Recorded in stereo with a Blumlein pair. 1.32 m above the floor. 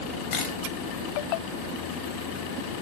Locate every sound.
0.3 s a camera shutter: 30° left, 3.5 m